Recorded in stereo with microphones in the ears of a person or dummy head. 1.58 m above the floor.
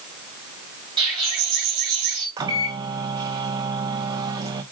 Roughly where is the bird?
Centre.